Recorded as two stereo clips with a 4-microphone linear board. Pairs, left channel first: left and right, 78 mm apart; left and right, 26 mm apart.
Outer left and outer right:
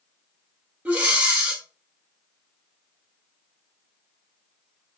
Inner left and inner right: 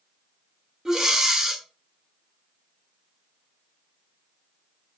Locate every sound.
0.8 s breathing: 20° right (ahead or behind), 0.7 m